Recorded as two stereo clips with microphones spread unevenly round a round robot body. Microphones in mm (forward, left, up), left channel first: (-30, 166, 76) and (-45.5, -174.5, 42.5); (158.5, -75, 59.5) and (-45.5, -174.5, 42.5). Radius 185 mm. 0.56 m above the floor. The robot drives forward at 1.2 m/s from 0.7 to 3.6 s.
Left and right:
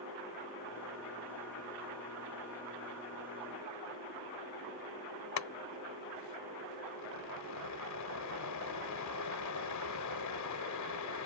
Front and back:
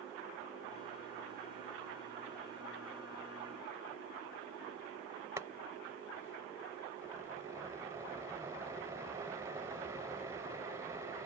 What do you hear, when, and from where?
5.4 s boiling: 125° left